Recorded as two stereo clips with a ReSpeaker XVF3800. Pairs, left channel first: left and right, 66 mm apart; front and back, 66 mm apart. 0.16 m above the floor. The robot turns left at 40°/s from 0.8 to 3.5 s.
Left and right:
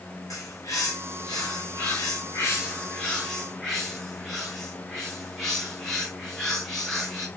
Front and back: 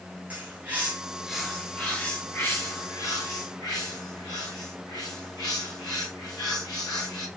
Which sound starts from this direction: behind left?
A bird, at 0.3 s.